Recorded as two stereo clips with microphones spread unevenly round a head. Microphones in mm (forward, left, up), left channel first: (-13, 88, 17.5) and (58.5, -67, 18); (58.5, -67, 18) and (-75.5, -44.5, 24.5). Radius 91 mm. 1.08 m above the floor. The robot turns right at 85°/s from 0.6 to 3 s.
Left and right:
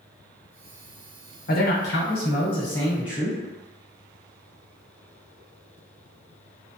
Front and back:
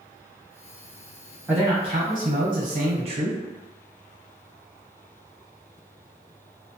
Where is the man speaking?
85° left, 1.0 m; by 3.4 s 150° right, 1.0 m.